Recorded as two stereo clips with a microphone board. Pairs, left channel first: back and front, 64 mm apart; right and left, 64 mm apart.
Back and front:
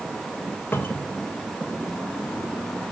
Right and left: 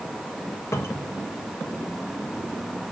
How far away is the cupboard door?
About 1.4 m.